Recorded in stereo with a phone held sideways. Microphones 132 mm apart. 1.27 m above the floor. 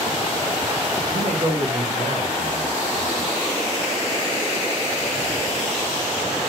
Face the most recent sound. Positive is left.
turn(degrees=-75)  # may be behind; listen again after turning